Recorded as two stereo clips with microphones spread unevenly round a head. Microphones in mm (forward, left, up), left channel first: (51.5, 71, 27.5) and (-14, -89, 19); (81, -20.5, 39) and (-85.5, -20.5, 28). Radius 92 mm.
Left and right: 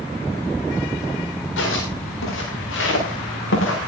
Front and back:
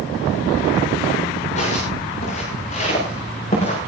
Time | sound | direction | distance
1.6 | footsteps | 55° left | 8 m